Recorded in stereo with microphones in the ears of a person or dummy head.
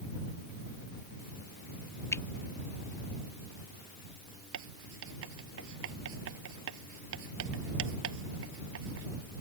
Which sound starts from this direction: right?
Writing, at 4.5 s.